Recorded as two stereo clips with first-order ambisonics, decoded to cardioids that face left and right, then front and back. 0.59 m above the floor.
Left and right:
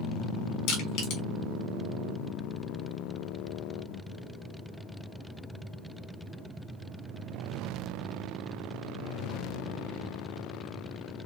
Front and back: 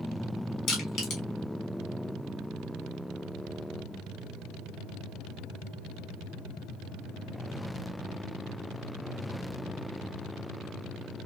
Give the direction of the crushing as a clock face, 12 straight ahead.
10 o'clock.